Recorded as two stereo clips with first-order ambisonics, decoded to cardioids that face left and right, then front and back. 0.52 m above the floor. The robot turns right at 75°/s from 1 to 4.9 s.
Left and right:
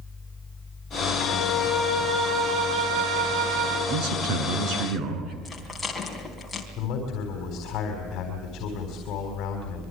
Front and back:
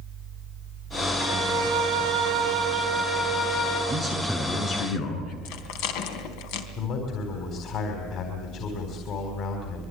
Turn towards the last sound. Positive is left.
turn(degrees=45)